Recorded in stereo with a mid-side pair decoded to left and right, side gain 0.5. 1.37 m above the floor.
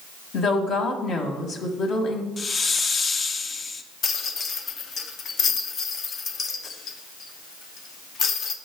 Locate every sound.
0.3 s a woman speaking: 60° left, 1.4 m
2.4 s a hiss: 35° left, 0.5 m
4.0 s a rattle: 50° left, 0.7 m